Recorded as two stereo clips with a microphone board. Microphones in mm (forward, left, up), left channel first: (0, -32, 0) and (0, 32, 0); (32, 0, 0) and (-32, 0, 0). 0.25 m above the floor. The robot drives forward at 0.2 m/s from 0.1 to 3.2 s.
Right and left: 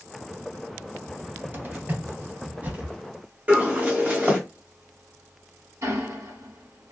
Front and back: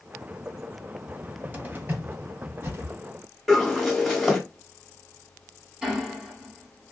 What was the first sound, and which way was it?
A cupboard door, 120° left.